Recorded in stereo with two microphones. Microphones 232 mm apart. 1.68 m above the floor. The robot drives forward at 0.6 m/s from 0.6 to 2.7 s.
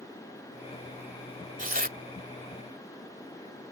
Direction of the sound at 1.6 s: 35° right (ahead or behind).